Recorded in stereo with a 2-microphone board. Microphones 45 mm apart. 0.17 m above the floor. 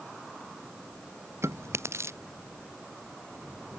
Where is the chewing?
85° right.